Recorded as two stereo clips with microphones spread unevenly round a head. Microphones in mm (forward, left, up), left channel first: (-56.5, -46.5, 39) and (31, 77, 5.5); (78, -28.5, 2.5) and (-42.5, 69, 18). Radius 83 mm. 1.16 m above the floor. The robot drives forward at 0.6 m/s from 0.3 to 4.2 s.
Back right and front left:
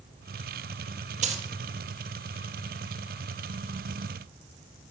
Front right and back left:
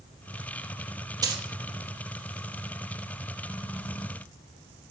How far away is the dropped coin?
About 1.4 m.